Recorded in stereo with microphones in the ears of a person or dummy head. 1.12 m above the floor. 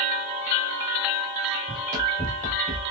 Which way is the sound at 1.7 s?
35° right (ahead or behind).